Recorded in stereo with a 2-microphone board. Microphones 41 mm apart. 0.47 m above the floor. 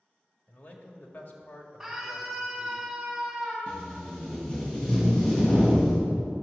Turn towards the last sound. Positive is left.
turn(degrees=25)  # may be behind; listen again after turning